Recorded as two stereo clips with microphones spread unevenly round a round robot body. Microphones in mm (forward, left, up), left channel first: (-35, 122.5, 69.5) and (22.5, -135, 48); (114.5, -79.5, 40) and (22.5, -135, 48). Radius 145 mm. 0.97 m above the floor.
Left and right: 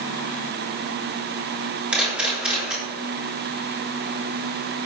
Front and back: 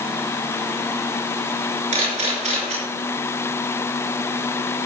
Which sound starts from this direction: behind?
A camera shutter, at 1.9 s.